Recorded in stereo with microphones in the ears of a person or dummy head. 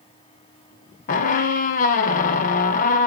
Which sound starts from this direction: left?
A squeak, at 1.1 s.